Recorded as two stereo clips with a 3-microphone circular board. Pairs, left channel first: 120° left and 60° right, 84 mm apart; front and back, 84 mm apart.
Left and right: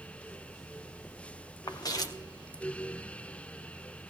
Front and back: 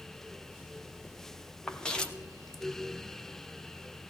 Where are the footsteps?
80° left, 1.5 m.